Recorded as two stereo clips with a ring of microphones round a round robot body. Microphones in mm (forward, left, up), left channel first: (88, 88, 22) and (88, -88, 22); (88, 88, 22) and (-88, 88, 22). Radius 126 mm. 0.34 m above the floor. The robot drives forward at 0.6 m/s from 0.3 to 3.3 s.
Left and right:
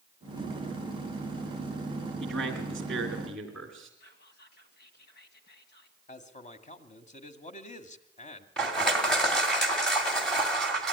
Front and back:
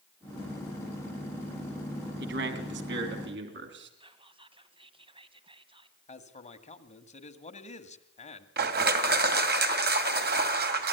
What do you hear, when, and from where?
2.2 s a man speaking: straight behind, 2.5 m
4.0 s whispering: 120° left, 2.5 m
6.1 s a man speaking: 45° left, 2 m
8.6 s crushing: 175° left, 2.5 m